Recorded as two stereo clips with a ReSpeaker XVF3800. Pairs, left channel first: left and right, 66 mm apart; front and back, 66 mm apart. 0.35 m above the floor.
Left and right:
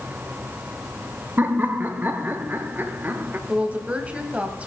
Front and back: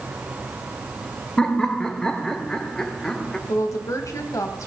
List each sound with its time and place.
1.4 s laughter: 70° right, 1.0 m
3.5 s a woman speaking: 25° right, 1.6 m